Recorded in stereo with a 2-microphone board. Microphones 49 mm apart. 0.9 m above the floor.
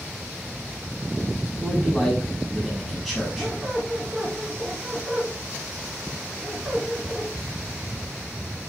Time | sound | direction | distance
1.6 | a man speaking | centre (ahead or behind) | 5.5 m
3.4 | a squeak | 10° right (ahead or behind) | 4 m